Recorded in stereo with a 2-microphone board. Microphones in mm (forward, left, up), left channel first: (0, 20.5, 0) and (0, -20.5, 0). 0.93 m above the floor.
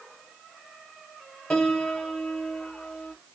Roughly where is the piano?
Centre.